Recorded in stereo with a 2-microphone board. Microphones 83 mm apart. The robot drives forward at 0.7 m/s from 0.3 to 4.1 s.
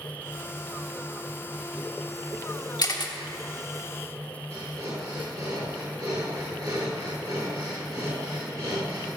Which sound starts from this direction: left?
A camera shutter, at 2.8 s.